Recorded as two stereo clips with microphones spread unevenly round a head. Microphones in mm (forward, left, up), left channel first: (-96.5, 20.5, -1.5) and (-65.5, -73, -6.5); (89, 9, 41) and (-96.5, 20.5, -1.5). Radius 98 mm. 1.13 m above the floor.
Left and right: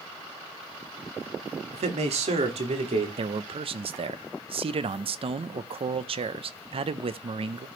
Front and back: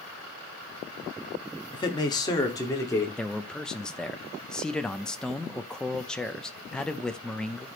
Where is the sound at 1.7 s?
70° right, 1.7 m; by 3.1 s 80° right, 3 m.